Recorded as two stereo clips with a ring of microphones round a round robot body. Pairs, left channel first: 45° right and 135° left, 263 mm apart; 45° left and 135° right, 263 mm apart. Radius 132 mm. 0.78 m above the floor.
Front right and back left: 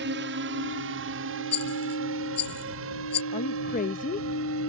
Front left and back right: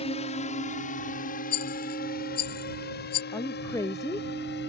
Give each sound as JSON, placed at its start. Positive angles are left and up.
{"t": 0.0, "sound": "a drone", "azimuth_deg": 105}
{"t": 1.5, "sound": "a rattle", "azimuth_deg": 10}
{"t": 3.3, "sound": "a woman speaking", "azimuth_deg": -25}